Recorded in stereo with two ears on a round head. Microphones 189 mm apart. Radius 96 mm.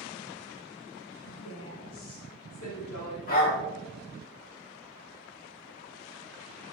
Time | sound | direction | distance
1.2 | a woman speaking | 70° left (ahead or behind) | 2.5 m
3.3 | a dog barking | 40° left (ahead or behind) | 2.5 m